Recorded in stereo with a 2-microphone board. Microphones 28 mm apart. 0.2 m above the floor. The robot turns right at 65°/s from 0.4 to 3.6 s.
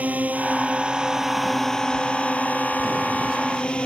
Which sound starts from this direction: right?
A drone, at 0.0 s.